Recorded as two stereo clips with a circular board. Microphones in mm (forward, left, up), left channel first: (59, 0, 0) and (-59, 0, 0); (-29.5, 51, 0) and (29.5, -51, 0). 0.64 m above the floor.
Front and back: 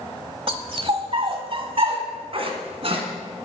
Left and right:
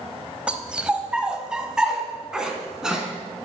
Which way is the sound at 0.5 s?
140° right.